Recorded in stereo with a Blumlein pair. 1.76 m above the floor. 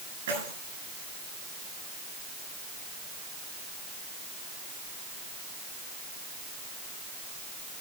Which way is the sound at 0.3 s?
60° right.